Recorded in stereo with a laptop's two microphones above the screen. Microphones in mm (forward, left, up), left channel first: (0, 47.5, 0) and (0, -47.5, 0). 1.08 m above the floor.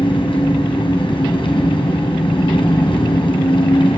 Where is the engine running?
70° left (ahead or behind), 2.5 m.